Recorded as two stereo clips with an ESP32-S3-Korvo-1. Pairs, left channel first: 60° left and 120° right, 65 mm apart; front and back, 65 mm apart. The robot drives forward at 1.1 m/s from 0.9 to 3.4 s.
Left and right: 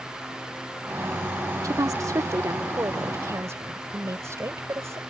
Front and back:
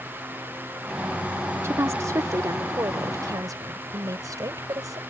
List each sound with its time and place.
1.6 s a woman speaking: 140° right; by 5.0 s 160° right